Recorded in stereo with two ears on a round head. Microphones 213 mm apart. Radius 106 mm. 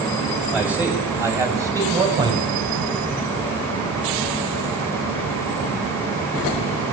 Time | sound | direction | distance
0.5 | a man speaking | 5° right (ahead or behind) | 7.5 m